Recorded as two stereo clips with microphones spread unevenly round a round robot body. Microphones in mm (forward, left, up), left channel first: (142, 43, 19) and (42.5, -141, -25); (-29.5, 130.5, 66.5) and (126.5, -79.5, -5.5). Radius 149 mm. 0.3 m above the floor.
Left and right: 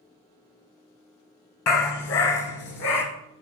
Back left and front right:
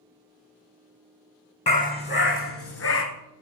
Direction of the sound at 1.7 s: 60° left.